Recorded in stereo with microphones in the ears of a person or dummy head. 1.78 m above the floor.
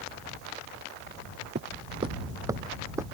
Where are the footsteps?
35° right (ahead or behind); by 3.1 s 10° right (ahead or behind).